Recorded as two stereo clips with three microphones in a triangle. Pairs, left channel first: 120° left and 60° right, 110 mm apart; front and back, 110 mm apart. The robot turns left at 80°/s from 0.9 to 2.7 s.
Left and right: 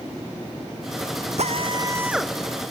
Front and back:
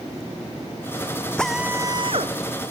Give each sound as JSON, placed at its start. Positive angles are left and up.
{"t": 1.4, "sound": "a drill", "azimuth_deg": -80}